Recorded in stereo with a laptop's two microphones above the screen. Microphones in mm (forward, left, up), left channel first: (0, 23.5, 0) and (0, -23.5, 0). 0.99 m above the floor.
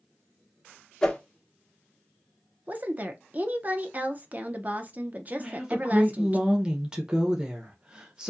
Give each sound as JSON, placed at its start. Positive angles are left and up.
{"t": 1.0, "sound": "a whoosh", "side_deg": 15, "distance_m": 1.2}
{"t": 2.7, "sound": "a woman speaking", "side_deg": -35, "distance_m": 0.6}
{"t": 5.4, "sound": "a woman speaking", "side_deg": -20, "distance_m": 0.9}